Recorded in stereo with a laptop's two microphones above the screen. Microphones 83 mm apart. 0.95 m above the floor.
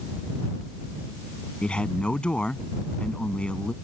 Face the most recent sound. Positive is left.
turn(degrees=10)  # may be behind; listen again after turning